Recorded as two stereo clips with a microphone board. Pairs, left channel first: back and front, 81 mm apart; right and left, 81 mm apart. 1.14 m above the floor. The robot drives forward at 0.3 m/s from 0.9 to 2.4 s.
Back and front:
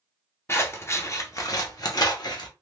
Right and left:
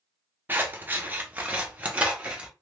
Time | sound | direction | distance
0.5 | scissors | 145° left | 0.6 m